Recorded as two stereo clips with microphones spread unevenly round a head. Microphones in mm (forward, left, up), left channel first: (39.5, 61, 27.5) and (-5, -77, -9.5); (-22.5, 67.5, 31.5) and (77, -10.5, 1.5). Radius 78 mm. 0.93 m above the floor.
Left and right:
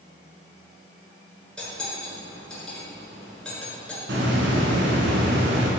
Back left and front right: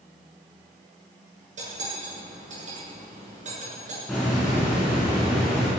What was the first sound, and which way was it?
Cutlery clinking, 10° right.